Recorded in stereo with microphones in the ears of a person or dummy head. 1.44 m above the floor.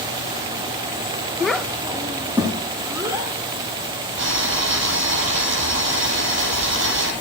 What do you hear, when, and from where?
1.4 s a child speaking: 10° left (ahead or behind), 0.6 m; by 3.3 s 20° right (ahead or behind), 3.5 m
4.2 s boiling: 75° right (ahead or behind), 9.5 m